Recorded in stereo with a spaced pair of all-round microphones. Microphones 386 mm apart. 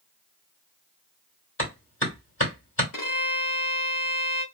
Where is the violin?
55° left (ahead or behind), 1.1 m.